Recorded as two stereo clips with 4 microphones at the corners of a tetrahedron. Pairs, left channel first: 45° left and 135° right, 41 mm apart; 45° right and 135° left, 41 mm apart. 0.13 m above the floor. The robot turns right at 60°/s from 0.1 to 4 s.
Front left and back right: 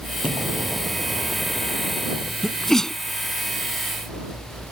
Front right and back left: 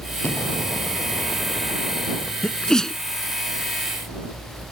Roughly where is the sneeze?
Ahead right.